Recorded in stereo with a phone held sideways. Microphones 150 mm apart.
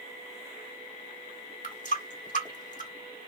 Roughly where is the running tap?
Left.